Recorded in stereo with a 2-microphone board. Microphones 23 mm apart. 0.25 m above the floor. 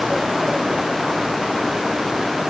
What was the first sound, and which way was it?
Only background noise.